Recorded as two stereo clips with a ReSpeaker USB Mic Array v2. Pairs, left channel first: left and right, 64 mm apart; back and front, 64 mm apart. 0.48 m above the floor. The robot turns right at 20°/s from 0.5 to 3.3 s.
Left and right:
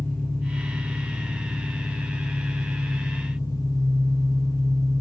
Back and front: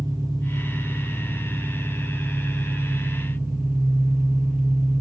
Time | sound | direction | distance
0.0 | an engine running | 20° left | 7 m